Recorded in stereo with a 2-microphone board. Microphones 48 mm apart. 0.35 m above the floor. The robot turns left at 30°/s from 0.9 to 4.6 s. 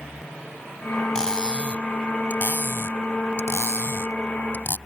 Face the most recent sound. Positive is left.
turn(degrees=55)  # may be behind; listen again after turning